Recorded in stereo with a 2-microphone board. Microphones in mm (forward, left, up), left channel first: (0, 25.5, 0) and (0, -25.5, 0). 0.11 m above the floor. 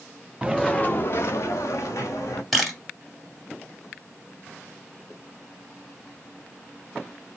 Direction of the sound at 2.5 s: Centre (ahead or behind).